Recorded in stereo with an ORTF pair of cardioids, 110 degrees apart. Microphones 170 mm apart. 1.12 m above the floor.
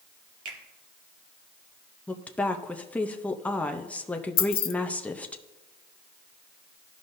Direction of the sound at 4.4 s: 65° left.